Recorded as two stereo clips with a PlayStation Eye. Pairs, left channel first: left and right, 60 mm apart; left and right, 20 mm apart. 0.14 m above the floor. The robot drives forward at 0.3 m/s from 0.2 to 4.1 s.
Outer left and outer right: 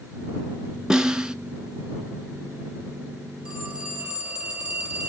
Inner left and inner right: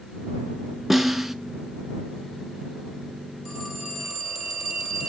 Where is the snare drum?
15° right (ahead or behind), 0.6 m.